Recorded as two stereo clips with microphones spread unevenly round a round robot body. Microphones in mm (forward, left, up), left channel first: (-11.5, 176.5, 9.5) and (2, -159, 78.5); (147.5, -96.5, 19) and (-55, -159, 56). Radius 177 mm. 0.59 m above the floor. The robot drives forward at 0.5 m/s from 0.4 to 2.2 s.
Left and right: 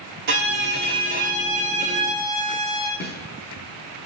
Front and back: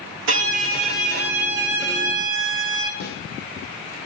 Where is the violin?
140° right, 1.0 m; by 2.9 s 160° right, 1.8 m.